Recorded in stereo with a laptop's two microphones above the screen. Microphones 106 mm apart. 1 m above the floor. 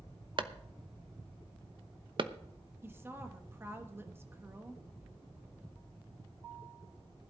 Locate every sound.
0.4 s a clap: 50° right (ahead or behind), 0.9 m
2.8 s a woman speaking: 20° right (ahead or behind), 1.2 m